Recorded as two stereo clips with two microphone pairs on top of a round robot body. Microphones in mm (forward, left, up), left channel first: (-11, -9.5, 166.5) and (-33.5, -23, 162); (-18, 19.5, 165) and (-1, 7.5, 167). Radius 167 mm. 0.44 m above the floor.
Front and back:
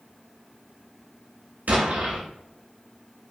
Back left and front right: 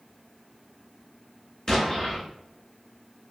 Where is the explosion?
155° right, 0.6 m.